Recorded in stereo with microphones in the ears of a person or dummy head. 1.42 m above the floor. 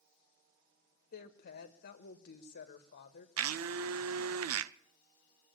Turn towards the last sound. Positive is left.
turn(degrees=-85)